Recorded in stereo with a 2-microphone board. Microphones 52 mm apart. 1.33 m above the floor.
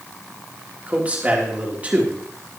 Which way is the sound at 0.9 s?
25° right (ahead or behind).